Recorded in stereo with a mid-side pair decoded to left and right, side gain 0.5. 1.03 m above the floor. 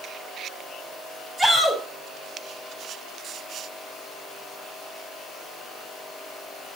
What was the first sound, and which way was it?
A shout, 15° right.